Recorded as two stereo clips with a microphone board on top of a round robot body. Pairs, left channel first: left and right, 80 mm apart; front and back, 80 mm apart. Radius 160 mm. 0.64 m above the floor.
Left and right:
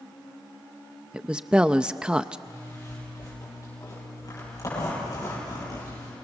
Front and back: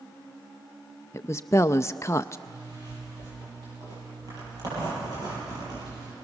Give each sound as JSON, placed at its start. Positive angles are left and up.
{"t": 1.1, "sound": "a woman speaking", "azimuth_deg": -20, "distance_m": 0.5}
{"t": 2.5, "sound": "a zipper", "azimuth_deg": 140, "distance_m": 9.5}